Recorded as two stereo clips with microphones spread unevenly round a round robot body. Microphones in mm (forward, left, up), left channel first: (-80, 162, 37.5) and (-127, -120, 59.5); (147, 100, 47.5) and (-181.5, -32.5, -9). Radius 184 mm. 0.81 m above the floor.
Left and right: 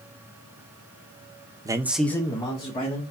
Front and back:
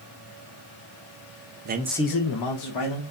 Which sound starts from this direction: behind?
A man speaking, at 1.6 s.